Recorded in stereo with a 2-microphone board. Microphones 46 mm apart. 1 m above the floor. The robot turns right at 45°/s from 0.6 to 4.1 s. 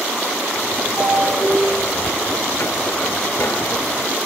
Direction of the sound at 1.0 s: 65° right.